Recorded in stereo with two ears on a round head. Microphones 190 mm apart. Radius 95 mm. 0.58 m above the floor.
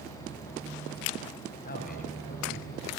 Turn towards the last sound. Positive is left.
turn(degrees=40)  # may be behind; listen again after turning